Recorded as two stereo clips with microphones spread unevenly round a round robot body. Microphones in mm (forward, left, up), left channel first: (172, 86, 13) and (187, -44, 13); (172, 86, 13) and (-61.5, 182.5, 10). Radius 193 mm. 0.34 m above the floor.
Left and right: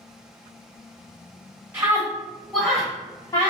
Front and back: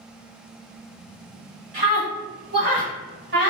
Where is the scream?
145° right, 1.2 m; by 3.5 s 140° left, 1.2 m.